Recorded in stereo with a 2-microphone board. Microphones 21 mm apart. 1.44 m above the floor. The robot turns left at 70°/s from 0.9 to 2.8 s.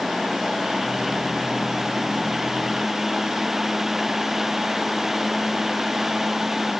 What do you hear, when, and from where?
Only background noise.